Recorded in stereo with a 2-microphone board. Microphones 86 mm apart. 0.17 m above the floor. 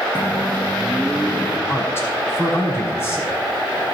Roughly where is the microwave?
Centre.